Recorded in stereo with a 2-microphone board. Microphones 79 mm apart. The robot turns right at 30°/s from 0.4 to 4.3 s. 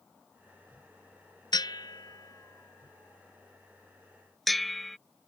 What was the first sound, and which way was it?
A bell, 65° left (ahead or behind).